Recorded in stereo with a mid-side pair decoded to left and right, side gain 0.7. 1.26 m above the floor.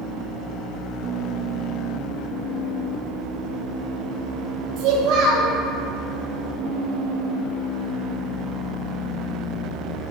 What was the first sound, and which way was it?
A child speaking, 65° right.